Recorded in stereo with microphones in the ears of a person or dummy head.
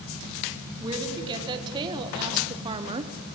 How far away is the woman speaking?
About 2.0 m.